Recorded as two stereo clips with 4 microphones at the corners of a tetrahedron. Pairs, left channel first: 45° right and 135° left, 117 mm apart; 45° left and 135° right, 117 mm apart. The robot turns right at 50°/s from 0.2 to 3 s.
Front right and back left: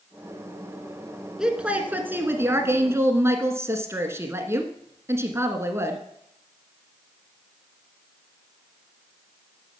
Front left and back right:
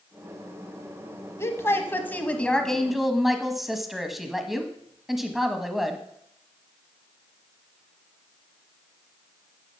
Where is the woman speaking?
60° left, 1.1 m; by 6.0 s 140° left, 1.1 m.